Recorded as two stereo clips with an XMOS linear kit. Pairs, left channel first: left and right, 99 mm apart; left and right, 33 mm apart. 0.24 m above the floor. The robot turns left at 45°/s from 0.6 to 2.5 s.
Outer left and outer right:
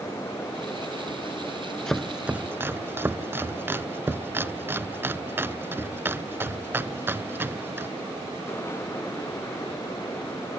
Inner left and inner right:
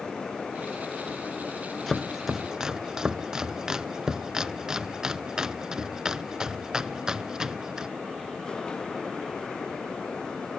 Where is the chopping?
5° left (ahead or behind), 0.5 m; by 7.9 s 20° right (ahead or behind), 0.5 m.